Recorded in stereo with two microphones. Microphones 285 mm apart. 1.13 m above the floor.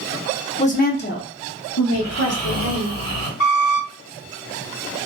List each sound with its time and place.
0.6 s a woman speaking: 20° left (ahead or behind), 0.6 m; by 2.9 s 60° left (ahead or behind), 1.3 m
1.9 s snoring: 25° left (ahead or behind), 1.5 m
3.4 s a squeak: 50° left (ahead or behind), 1.3 m